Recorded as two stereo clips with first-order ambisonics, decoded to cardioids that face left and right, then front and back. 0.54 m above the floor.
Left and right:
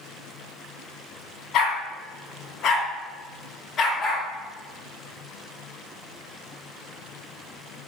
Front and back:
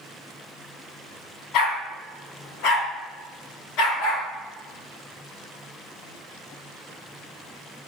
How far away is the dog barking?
About 1.8 m.